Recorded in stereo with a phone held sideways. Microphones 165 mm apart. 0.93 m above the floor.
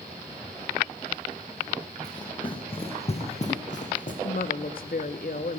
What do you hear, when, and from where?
2.0 s running footsteps: 25° left (ahead or behind), 2.5 m; by 4.1 s 55° left (ahead or behind), 3 m
4.2 s a woman speaking: 60° left (ahead or behind), 1.1 m